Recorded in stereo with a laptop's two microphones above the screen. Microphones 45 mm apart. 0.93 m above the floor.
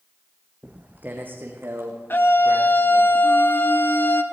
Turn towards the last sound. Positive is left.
turn(degrees=55)  # may be behind; listen again after turning